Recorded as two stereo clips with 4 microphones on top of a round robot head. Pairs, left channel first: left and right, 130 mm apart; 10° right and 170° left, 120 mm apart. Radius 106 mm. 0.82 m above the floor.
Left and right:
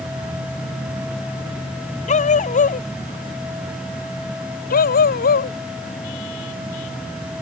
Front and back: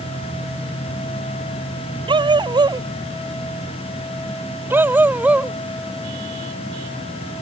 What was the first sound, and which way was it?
A dog barking, 120° left.